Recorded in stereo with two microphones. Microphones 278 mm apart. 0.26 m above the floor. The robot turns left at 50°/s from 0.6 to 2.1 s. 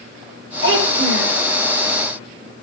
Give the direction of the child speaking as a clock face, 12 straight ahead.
1 o'clock.